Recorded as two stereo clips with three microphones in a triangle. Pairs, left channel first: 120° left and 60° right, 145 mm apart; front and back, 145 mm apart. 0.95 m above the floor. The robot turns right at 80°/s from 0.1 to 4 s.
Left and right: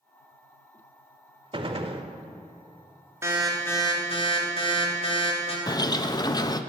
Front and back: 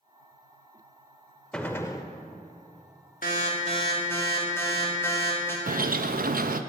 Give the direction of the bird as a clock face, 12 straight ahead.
6 o'clock.